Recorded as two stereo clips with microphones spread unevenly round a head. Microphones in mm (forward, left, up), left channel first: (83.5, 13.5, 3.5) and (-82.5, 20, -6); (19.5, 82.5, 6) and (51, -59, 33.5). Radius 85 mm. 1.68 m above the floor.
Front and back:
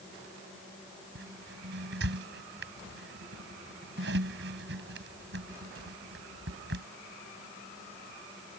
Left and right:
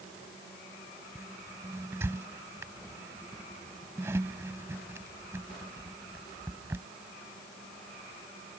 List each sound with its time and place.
1.1 s a squeak: 150° right